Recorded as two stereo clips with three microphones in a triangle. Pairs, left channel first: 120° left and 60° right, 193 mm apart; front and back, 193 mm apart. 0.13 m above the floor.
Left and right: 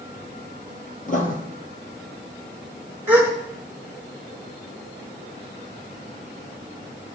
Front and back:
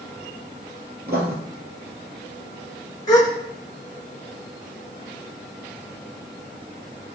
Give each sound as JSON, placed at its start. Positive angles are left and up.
{"t": 1.1, "sound": "writing", "azimuth_deg": 160, "distance_m": 1.8}
{"t": 3.1, "sound": "a gasp", "azimuth_deg": -5, "distance_m": 1.6}